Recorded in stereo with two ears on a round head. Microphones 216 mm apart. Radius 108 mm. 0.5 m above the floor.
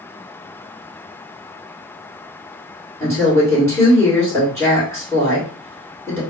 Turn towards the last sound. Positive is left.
turn(degrees=10)  # may be behind; listen again after turning